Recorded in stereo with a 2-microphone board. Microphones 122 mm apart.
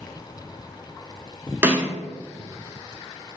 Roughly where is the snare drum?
Centre.